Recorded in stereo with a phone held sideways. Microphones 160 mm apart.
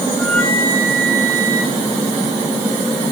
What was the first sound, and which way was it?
A flute, 5° left (ahead or behind).